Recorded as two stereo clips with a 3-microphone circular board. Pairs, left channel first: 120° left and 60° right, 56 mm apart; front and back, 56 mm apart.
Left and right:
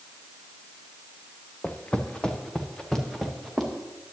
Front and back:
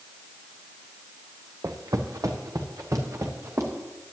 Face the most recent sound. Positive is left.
turn(degrees=-150)